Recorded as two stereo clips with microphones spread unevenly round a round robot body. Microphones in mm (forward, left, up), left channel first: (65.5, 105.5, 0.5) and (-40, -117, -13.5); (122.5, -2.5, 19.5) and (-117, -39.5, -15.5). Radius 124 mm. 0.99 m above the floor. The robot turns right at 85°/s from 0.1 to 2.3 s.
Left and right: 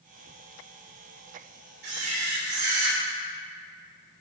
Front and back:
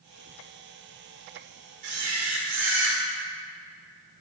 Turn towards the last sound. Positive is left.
turn(degrees=-130)